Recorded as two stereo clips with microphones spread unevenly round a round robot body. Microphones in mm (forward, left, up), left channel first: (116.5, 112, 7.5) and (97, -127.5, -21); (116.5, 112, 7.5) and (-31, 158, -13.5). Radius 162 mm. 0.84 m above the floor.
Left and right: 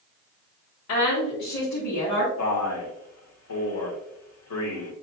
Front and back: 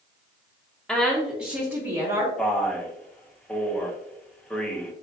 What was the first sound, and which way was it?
A woman speaking, 75° left.